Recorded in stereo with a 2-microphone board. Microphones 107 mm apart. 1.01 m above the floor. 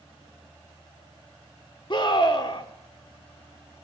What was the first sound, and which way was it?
A scream, 45° left (ahead or behind).